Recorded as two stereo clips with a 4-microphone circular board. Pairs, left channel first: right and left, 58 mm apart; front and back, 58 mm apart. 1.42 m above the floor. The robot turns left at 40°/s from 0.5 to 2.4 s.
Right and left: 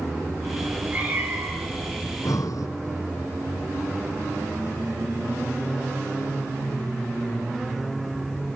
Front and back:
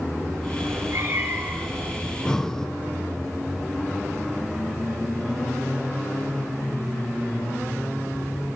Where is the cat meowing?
165° left, 3.5 m; by 1.9 s 110° left, 3.5 m.